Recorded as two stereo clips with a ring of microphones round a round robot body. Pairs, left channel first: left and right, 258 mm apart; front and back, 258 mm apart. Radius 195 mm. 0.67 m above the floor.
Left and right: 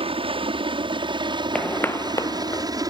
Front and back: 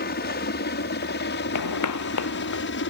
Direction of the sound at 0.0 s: 30° right.